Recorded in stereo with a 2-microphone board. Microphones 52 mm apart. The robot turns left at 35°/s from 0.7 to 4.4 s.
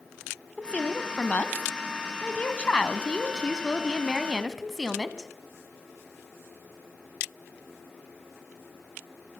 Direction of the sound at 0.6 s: 25° left (ahead or behind).